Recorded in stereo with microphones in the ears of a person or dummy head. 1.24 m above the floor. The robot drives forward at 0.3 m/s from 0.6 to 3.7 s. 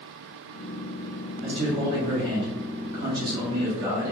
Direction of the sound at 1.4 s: 35° right (ahead or behind).